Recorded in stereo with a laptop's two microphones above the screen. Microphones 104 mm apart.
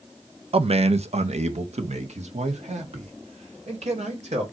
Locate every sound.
0.5 s a man speaking: 60° right (ahead or behind), 0.6 m; by 4.4 s 90° right, 2.5 m